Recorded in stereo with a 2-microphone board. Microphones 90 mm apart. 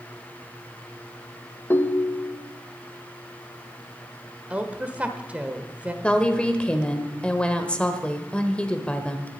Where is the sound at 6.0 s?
10° left (ahead or behind), 1.2 m.